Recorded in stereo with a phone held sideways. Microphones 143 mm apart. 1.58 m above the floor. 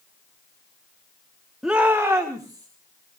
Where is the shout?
5° right (ahead or behind), 1.2 m; by 2.7 s 25° right (ahead or behind), 2.5 m.